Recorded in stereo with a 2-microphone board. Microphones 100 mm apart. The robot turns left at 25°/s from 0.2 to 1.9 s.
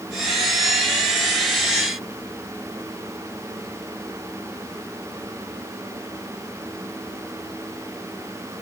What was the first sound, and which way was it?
Only background noise.